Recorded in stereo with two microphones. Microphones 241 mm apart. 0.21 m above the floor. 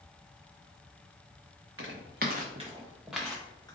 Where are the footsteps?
60° right (ahead or behind), 0.9 m; by 3.8 s 15° left (ahead or behind), 1.1 m.